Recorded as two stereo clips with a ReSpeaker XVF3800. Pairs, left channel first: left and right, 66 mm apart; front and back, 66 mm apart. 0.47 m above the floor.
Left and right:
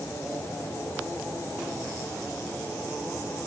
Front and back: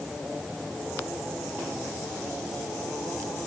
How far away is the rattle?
I don't hear a rattle.